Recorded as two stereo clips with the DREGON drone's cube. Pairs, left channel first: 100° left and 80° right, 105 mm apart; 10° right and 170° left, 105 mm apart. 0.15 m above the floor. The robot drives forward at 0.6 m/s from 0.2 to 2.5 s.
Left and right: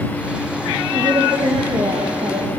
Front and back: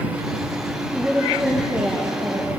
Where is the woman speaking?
115° right, 5 m; by 2.5 s 125° right, 5 m.